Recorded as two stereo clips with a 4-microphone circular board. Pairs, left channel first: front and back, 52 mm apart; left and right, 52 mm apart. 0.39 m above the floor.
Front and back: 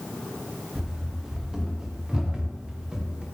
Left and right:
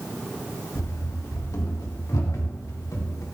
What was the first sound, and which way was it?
Running footsteps, 100° left.